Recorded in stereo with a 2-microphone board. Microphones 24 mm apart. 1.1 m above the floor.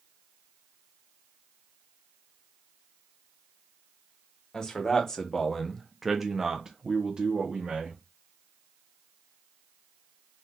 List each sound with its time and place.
4.5 s a man speaking: 25° left (ahead or behind), 1.1 m; by 8.0 s 50° right (ahead or behind), 1.1 m